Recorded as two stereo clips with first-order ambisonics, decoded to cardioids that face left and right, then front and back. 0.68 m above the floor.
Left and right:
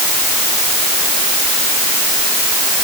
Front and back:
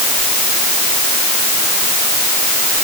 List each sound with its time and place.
Only background noise.